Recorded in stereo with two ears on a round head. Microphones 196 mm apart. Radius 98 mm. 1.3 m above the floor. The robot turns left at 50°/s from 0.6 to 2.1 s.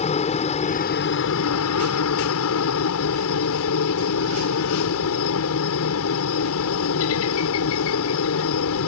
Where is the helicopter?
150° left; by 8.9 s 75° left.